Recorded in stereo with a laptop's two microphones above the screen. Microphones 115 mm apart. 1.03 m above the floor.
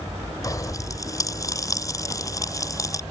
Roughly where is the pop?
Left.